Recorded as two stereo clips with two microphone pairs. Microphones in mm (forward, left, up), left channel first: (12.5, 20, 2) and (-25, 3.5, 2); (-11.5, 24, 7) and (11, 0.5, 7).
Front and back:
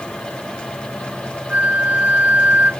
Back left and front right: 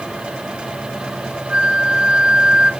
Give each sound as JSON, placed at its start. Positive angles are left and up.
{"t": 1.5, "sound": "a flute", "azimuth_deg": -105, "distance_m": 0.9}